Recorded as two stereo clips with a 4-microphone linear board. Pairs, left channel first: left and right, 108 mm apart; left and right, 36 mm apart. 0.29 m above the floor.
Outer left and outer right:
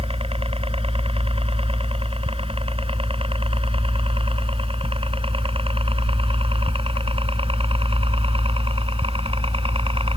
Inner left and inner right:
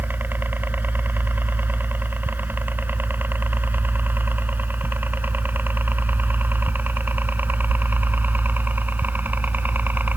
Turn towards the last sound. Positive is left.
turn(degrees=-65)  # may be behind; listen again after turning